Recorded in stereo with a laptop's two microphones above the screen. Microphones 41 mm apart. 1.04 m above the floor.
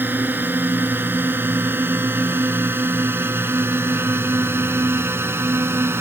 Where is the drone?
55° right (ahead or behind); by 6.0 s 80° right.